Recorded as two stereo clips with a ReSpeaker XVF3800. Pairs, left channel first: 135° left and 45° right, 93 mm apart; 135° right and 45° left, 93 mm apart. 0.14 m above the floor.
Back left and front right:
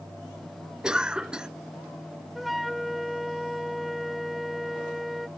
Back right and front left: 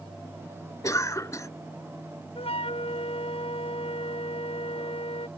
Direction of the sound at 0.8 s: 120° right.